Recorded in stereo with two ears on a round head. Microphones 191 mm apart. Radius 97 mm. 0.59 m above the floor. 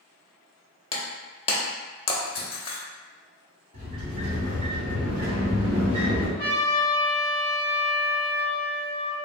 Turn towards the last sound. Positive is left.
turn(degrees=50)  # may be behind; listen again after turning